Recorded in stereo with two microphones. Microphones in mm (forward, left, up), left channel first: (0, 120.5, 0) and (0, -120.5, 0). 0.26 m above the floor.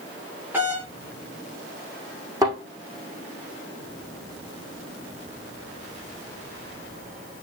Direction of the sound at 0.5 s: 10° right (ahead or behind).